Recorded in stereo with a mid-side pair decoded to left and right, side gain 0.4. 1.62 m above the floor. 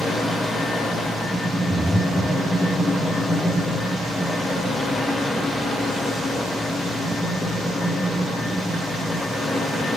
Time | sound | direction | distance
0.0 | a fan | 45° left | 1.0 m
1.7 | breathing | 5° left | 0.6 m